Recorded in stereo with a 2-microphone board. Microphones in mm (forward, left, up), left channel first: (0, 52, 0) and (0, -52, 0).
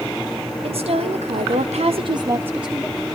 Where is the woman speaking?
60° right (ahead or behind), 1.8 m; by 3.0 s 5° left (ahead or behind), 1.3 m.